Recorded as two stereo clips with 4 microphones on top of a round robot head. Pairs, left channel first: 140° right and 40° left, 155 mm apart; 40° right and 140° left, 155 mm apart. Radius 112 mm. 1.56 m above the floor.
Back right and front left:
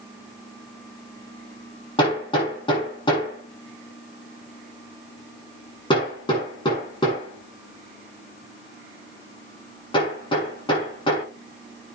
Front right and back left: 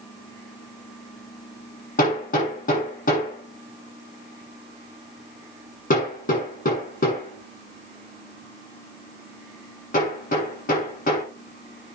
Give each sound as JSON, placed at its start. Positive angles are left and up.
{"t": 2.0, "sound": "hammering", "azimuth_deg": -80, "distance_m": 7.0}